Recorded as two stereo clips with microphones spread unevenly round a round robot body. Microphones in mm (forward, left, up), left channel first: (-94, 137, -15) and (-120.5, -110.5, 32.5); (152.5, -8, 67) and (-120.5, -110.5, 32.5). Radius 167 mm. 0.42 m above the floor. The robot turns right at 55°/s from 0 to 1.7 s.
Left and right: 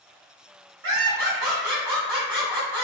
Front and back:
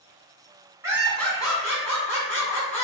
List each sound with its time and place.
0.8 s laughter: 95° right, 1.7 m; by 2.9 s 45° right, 1.7 m